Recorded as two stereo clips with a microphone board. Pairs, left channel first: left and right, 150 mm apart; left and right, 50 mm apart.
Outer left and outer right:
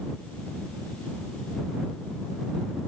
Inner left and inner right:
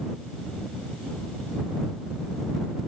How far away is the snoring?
I don't hear snoring.